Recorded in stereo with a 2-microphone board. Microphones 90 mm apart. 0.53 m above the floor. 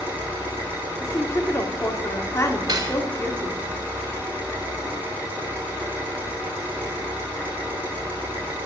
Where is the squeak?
No squeak in this recording.